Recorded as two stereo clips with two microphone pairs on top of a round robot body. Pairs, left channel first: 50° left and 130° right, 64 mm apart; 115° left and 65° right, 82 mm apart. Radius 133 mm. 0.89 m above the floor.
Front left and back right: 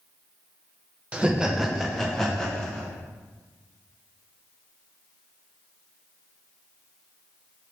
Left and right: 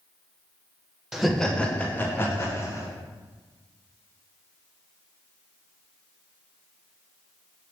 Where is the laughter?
165° left, 0.7 m; by 2.9 s 115° left, 1.2 m.